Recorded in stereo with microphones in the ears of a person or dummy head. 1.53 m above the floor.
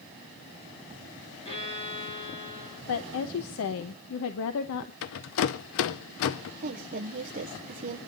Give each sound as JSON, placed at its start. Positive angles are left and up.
{"t": 1.4, "sound": "a violin", "side_deg": 30, "distance_m": 7.0}
{"t": 2.9, "sound": "a woman speaking", "side_deg": 70, "distance_m": 1.1}
{"t": 5.0, "sound": "a rattle", "side_deg": 60, "distance_m": 0.8}
{"t": 6.6, "sound": "a woman speaking", "side_deg": -45, "distance_m": 1.3}